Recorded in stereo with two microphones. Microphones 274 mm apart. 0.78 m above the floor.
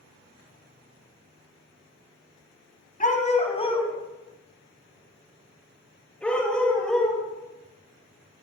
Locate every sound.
3.0 s a dog barking: 30° left (ahead or behind), 1.8 m; by 7.2 s centre (ahead or behind), 5.5 m